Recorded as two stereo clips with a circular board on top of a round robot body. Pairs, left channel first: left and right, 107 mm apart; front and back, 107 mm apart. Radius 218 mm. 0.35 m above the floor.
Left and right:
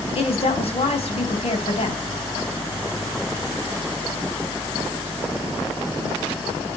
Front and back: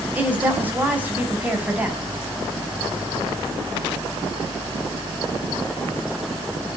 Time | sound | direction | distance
0.1 | a woman speaking | 105° left | 4.5 m